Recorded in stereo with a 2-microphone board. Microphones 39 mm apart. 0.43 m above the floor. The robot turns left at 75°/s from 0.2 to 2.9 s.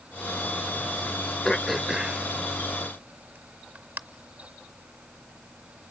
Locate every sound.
1.4 s throat clearing: 15° left (ahead or behind), 0.6 m; by 4.0 s 65° right (ahead or behind), 0.6 m